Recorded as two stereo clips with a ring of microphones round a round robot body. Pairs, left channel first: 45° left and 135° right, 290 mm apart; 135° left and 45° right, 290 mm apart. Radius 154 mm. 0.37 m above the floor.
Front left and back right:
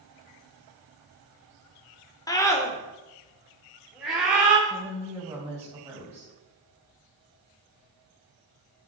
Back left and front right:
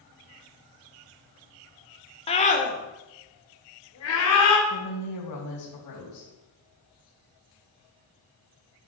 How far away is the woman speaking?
About 3 m.